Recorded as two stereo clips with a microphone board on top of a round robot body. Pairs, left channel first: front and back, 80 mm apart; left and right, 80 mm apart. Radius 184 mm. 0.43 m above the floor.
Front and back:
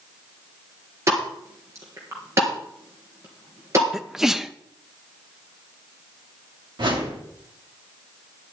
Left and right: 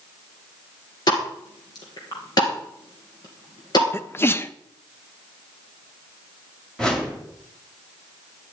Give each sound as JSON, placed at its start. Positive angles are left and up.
{"t": 1.1, "sound": "a pop", "azimuth_deg": 125, "distance_m": 2.5}
{"t": 3.9, "sound": "a sneeze", "azimuth_deg": 100, "distance_m": 0.7}
{"t": 6.8, "sound": "a whoosh", "azimuth_deg": 170, "distance_m": 2.5}